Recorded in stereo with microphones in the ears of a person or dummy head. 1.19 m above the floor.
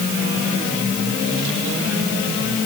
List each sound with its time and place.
Only background noise.